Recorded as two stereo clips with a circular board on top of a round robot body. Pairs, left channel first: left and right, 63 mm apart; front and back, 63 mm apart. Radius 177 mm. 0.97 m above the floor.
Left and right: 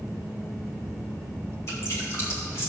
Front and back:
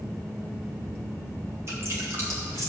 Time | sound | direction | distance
1.7 | dripping | 135° left | 2.5 m